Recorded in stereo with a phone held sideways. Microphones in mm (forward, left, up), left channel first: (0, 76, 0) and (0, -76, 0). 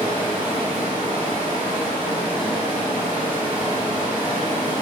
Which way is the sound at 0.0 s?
30° left (ahead or behind).